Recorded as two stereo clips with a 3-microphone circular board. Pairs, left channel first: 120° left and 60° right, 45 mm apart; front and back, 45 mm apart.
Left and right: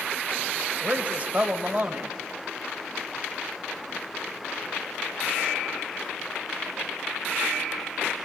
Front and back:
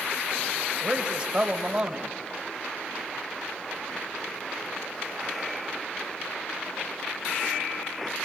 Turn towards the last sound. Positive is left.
turn(degrees=-110)